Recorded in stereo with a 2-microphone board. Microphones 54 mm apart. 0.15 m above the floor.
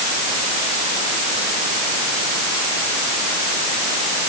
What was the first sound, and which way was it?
Only background noise.